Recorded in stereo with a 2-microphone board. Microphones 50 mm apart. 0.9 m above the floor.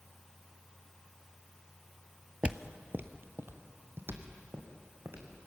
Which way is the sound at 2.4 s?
25° right (ahead or behind).